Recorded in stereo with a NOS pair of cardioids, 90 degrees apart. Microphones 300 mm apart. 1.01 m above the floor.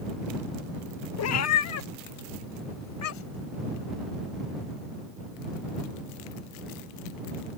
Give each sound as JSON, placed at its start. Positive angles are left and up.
{"t": 1.2, "sound": "a cat meowing", "azimuth_deg": 60}